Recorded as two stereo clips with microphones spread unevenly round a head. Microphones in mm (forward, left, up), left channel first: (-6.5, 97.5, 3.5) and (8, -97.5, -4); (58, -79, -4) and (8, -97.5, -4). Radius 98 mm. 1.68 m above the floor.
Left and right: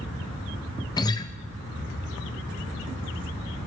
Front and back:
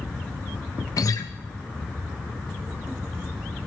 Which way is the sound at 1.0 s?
25° left.